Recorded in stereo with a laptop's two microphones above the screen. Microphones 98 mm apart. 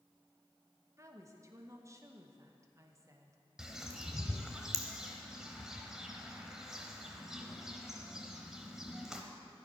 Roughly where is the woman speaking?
Right.